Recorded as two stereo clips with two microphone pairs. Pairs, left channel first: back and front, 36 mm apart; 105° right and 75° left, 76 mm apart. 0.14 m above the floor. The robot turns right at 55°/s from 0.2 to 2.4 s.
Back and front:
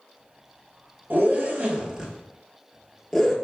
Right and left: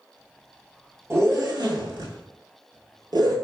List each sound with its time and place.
1.1 s a zipper: 20° left, 0.7 m; by 3.4 s 90° left, 0.7 m